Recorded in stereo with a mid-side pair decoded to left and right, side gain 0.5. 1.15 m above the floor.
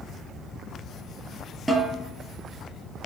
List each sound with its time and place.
1.7 s a snare drum: 5° right, 5.5 m